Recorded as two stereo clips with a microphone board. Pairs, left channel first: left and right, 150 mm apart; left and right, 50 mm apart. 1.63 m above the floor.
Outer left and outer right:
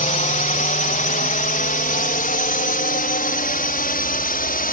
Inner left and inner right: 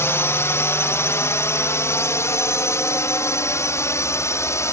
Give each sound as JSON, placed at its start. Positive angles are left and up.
{"t": 0.0, "sound": "a drone", "side_deg": 60}